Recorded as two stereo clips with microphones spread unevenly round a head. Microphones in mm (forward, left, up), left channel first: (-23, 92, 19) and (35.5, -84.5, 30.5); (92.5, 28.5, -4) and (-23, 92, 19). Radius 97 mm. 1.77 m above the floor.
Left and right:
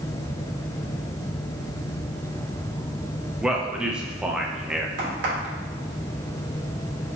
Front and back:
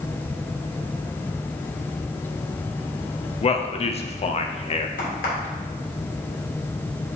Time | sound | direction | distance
3.4 | a man speaking | 15° left | 0.9 m
5.0 | a crack | 55° right | 3 m